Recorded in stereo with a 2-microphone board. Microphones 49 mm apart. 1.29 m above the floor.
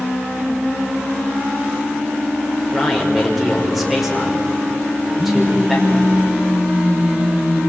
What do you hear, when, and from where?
2.7 s a man speaking: 5° right (ahead or behind), 6 m
5.2 s a phone buzzing: 40° right (ahead or behind), 6 m